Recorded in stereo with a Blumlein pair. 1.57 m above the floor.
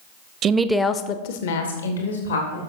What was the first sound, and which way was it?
A woman speaking, 30° right.